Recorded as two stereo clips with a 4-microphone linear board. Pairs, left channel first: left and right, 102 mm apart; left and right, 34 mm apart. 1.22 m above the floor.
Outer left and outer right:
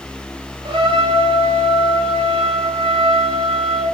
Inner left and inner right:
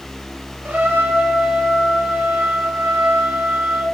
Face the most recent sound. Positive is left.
turn(degrees=-70)  # may be behind; listen again after turning